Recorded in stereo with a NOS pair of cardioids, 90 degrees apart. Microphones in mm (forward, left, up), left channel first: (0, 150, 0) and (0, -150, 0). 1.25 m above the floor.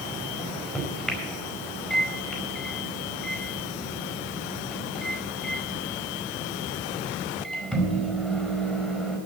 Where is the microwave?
Straight ahead, 4.5 m.